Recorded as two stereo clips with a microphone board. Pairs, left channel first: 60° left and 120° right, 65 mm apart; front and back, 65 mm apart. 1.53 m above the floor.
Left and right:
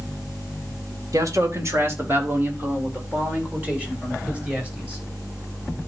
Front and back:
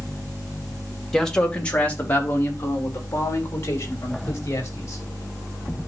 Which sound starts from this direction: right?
A man speaking, at 1.1 s.